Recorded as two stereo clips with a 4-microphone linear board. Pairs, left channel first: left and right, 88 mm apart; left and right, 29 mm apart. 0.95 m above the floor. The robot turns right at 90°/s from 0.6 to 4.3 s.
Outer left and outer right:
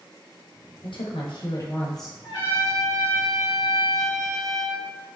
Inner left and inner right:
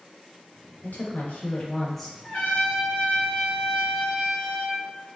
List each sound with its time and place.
0.8 s a woman speaking: 70° left, 0.9 m; by 2.1 s 170° right, 0.9 m
2.2 s a trumpet: 80° left, 1.7 m; by 4.9 s 95° right, 1.7 m